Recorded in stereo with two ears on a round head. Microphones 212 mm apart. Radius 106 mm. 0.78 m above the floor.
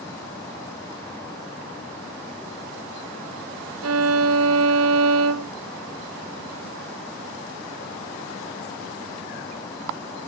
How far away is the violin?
About 0.6 m.